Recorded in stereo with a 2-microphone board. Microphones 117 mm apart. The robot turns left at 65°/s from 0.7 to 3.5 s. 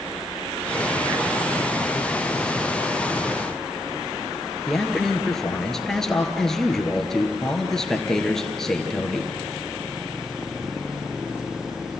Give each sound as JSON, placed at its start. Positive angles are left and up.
{"t": 4.7, "sound": "a man speaking", "side_deg": 5, "distance_m": 2.5}